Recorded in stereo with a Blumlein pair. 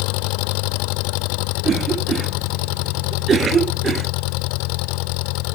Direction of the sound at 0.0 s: 45° left.